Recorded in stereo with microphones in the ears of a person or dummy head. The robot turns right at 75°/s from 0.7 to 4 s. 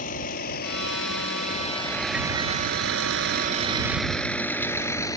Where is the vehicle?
55° left (ahead or behind); by 5.2 s 25° left (ahead or behind).